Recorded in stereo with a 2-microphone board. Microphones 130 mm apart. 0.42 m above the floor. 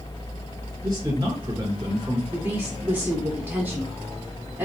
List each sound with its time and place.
0.8 s a man speaking: 30° right (ahead or behind), 2.0 m
2.3 s a woman speaking: 15° right (ahead or behind), 0.9 m